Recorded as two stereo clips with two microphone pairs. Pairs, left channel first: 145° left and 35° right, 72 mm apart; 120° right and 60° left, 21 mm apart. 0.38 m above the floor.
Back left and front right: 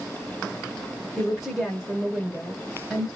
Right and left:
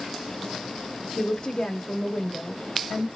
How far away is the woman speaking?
About 0.9 m.